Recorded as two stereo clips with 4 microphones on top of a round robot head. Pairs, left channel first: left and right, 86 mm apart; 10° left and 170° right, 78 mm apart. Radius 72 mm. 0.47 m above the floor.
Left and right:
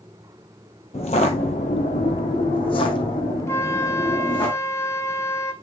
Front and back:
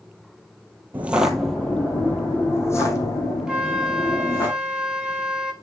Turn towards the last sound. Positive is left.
turn(degrees=120)